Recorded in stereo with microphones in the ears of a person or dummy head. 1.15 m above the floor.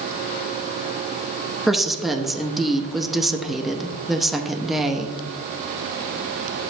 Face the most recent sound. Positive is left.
turn(degrees=0)  # may be behind; listen again after turning